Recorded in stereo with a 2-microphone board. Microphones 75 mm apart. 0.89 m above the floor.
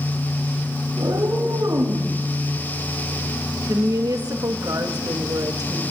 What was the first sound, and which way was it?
A cat meowing, 65° right (ahead or behind).